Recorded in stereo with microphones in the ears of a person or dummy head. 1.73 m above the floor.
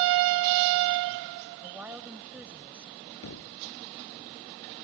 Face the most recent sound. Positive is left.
turn(degrees=80)